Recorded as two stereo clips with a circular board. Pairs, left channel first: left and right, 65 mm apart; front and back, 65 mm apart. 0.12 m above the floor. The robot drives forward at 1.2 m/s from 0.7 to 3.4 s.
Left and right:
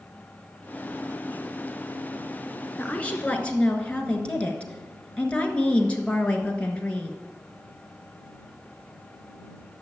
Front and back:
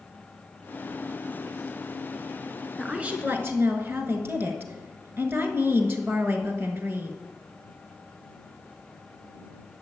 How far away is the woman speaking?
About 1.1 m.